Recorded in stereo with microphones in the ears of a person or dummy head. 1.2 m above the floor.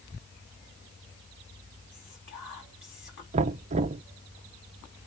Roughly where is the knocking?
Right.